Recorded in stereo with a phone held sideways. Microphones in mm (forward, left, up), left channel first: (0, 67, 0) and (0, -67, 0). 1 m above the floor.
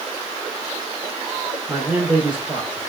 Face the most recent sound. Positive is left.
turn(degrees=-10)  # may be behind; listen again after turning